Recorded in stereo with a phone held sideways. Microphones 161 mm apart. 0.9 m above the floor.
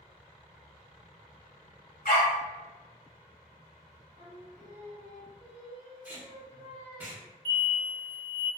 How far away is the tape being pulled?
About 0.7 m.